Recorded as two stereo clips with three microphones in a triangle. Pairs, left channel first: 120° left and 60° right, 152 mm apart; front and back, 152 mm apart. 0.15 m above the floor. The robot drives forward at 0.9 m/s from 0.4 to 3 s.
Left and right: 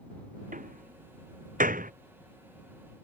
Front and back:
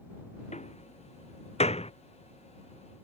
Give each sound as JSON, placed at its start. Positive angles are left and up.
{"t": 0.5, "sound": "a door slam", "azimuth_deg": -40}